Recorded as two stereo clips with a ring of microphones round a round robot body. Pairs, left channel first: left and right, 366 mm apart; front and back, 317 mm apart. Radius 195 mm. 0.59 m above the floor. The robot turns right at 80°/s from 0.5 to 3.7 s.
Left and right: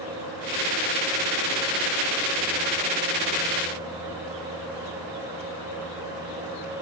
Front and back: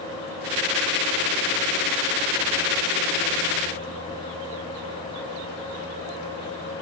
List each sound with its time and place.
Only background noise.